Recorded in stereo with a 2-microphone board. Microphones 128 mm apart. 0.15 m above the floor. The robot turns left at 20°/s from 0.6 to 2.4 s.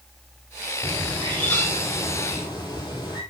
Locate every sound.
0.8 s a bird: straight behind, 2.5 m; by 3.2 s 145° left, 2.5 m